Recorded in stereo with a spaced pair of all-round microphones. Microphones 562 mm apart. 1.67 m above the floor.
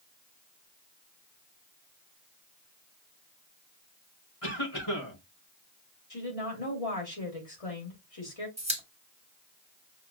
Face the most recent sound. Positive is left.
turn(degrees=-10)  # may be behind; listen again after turning